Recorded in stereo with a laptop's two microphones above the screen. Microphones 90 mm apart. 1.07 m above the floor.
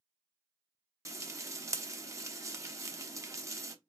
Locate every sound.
1.1 s frying: 35° right (ahead or behind), 0.6 m